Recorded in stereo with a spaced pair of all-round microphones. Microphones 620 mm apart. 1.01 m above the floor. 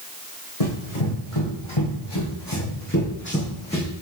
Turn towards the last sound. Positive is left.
turn(degrees=5)  # may be behind; listen again after turning